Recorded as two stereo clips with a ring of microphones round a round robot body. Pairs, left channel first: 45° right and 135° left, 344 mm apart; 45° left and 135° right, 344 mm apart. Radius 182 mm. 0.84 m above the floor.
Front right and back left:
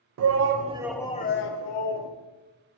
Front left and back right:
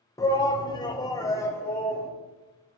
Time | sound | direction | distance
0.2 | a shout | 120° left | 0.6 m